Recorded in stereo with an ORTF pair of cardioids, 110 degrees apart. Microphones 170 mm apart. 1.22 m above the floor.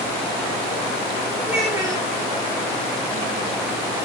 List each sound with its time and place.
1.4 s a child speaking: 20° right, 3.5 m